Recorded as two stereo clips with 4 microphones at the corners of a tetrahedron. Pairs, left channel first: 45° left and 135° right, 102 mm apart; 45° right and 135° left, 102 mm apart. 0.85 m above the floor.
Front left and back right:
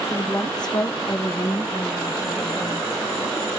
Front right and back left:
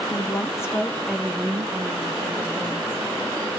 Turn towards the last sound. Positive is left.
turn(degrees=130)